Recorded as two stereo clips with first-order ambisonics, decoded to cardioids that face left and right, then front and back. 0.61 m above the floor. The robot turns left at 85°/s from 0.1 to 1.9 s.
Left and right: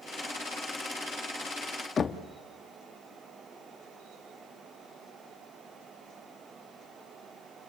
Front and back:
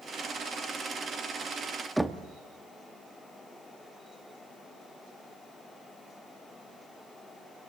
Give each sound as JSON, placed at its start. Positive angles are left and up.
{"t": 2.0, "sound": "knocking", "azimuth_deg": 95, "distance_m": 0.7}